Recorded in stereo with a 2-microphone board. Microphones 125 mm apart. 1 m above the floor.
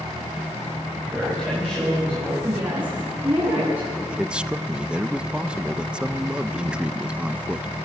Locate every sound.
1.1 s a man speaking: 10° right (ahead or behind), 6 m
2.4 s a woman speaking: 20° right (ahead or behind), 9.5 m
4.1 s a man speaking: 10° right (ahead or behind), 0.5 m